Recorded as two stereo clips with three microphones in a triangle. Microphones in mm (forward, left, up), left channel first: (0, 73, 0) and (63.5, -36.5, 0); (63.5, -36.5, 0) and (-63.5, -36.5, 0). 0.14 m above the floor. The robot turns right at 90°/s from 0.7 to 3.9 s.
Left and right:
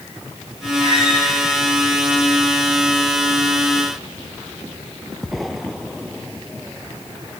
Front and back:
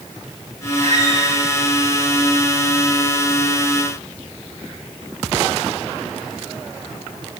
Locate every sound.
0.8 s a squeak: 145° left, 9 m; by 1.3 s 170° right, 9 m